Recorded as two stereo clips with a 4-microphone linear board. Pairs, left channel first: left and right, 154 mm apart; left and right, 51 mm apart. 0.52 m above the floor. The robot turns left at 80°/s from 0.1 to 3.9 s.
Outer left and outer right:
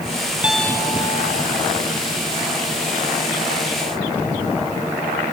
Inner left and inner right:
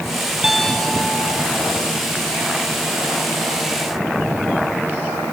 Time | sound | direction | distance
0.4 | a piano | 170° right | ?